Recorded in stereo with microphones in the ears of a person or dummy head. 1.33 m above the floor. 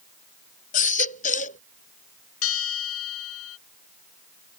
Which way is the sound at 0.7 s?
40° left (ahead or behind).